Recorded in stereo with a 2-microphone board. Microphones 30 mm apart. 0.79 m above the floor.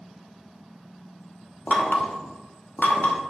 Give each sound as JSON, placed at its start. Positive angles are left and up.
{"t": 1.7, "sound": "knocking", "side_deg": 65, "distance_m": 1.2}